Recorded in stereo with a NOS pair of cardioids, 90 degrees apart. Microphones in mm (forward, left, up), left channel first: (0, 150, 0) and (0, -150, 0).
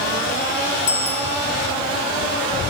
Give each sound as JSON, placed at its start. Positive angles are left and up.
{"t": 0.9, "sound": "a bicycle bell", "azimuth_deg": 50, "distance_m": 5.0}